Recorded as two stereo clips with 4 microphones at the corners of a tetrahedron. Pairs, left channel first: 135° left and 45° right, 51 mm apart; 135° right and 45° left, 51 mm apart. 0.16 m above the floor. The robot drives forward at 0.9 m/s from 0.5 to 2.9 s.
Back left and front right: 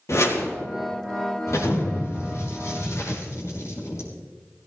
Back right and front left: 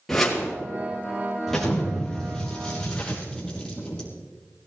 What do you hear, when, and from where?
0.1 s a whoosh: 140° left, 4 m
1.5 s an explosion: 140° left, 4 m; by 4.1 s 150° left, 5 m